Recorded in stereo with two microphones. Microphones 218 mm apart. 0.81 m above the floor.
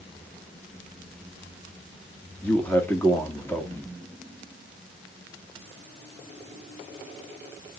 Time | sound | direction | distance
2.4 | a man speaking | 10° left (ahead or behind) | 1.7 m